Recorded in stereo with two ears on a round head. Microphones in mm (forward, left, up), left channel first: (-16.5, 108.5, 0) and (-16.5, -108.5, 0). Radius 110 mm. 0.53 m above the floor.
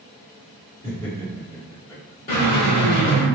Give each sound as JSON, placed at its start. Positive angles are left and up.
{"t": 0.8, "sound": "laughter", "side_deg": 20, "distance_m": 1.3}
{"t": 2.3, "sound": "a drill", "side_deg": 35, "distance_m": 1.4}